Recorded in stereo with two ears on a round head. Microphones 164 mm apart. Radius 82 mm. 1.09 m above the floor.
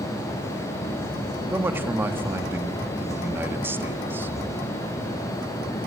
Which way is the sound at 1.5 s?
10° right (ahead or behind).